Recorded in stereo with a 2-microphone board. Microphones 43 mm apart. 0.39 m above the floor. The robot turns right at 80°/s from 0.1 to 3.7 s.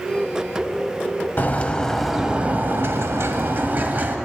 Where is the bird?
130° left, 0.9 m; by 4.2 s 45° right, 0.9 m.